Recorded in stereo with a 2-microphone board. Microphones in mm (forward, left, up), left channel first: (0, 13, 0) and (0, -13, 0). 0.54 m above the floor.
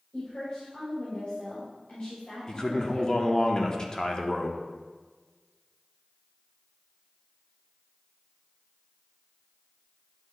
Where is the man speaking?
30° left (ahead or behind), 0.8 m.